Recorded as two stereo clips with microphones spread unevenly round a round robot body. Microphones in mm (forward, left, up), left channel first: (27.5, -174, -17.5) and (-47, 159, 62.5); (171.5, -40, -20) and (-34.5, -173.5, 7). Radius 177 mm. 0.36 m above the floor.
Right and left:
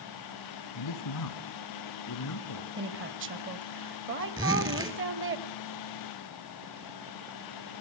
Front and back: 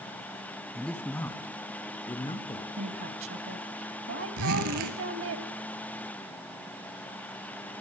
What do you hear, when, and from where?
0.8 s a man speaking: 55° right, 2.5 m; by 2.7 s 35° right, 4.5 m
2.8 s a woman speaking: 165° left, 1.8 m
4.4 s a zipper: straight behind, 2.5 m